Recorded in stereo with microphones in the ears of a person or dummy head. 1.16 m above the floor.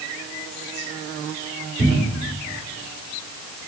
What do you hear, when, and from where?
1.8 s a cupboard door: 20° left (ahead or behind), 2.5 m